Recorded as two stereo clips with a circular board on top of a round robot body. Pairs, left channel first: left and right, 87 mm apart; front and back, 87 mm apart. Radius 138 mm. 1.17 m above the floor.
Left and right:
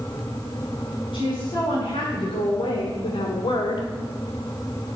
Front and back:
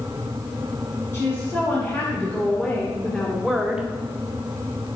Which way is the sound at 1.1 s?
65° left.